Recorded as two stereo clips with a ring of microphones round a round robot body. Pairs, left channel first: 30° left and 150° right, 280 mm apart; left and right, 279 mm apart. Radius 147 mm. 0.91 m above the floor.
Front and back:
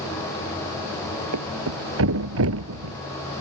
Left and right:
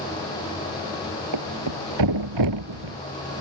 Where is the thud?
105° right.